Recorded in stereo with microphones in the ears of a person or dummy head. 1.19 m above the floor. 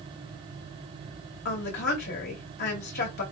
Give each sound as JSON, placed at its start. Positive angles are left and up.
{"t": 1.4, "sound": "a woman speaking", "side_deg": 55, "distance_m": 2.5}